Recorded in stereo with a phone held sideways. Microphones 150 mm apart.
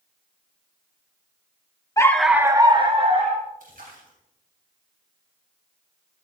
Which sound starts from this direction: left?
A dog barking, at 2.0 s.